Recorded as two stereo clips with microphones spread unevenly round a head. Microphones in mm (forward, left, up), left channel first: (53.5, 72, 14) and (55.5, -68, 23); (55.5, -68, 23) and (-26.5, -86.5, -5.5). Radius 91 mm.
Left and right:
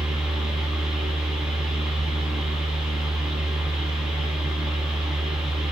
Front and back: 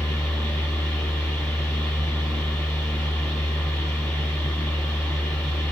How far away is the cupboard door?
I don't hear a cupboard door.